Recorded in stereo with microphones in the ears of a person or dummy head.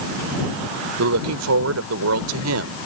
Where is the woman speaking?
85° right.